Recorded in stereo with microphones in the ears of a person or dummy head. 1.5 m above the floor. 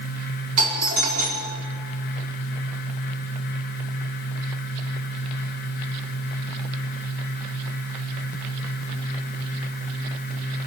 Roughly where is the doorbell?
Right.